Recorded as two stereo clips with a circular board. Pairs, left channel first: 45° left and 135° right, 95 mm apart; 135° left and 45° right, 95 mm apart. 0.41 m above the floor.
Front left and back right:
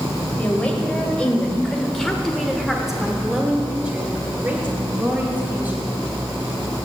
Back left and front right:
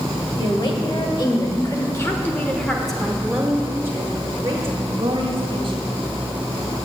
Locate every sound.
0.4 s a woman speaking: 120° left, 2 m; by 5.8 s 65° right, 2.5 m